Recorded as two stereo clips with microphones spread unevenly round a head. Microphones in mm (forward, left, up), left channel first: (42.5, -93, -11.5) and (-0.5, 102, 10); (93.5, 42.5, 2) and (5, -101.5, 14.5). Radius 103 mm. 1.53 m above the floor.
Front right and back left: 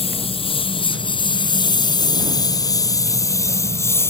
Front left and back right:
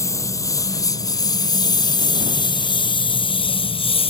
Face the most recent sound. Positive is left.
turn(degrees=0)